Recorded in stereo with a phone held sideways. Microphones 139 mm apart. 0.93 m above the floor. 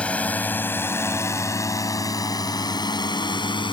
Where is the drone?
10° left (ahead or behind); by 3.7 s 35° left (ahead or behind).